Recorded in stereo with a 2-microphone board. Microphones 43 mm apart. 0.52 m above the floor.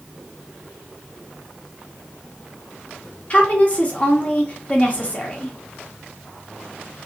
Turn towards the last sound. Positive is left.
turn(degrees=30)  # may be behind; listen again after turning